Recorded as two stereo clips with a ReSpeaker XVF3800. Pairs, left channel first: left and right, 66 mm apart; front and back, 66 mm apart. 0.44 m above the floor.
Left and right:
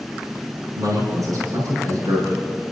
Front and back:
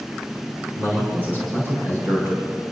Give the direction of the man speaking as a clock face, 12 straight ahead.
4 o'clock.